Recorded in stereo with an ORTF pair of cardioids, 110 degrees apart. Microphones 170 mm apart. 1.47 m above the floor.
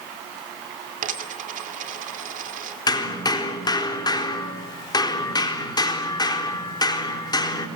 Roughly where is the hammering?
Ahead left.